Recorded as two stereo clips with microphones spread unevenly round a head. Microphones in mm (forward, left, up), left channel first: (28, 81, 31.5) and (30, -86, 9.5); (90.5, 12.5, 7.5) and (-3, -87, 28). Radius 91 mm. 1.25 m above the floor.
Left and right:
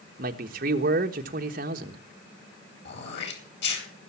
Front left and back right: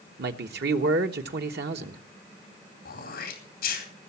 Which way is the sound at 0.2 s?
140° right.